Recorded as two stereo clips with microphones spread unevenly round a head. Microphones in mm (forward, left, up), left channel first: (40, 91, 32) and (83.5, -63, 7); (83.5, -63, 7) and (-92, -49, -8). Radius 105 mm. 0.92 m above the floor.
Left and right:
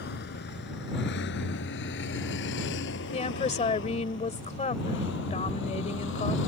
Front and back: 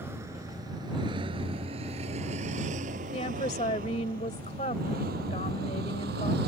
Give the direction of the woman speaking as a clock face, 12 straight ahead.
10 o'clock.